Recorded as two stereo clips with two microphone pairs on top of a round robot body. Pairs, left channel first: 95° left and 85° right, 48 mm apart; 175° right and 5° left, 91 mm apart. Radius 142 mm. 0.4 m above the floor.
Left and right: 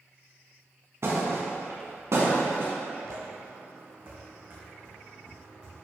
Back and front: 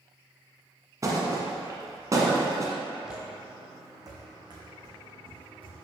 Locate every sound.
1.0 s a thud: 50° right, 1.3 m
3.0 s footsteps: 80° right, 0.9 m; by 5.8 s 30° right, 3.5 m